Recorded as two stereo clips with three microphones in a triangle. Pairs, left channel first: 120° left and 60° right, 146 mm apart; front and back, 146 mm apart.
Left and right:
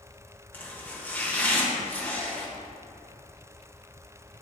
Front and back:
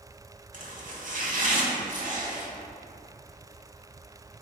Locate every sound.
0.5 s chopping: 165° right, 1.2 m